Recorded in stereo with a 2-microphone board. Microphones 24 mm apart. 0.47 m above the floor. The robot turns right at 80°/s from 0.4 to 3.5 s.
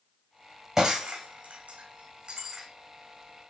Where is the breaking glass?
15° right (ahead or behind), 3 m; by 2.7 s 10° right (ahead or behind), 3 m.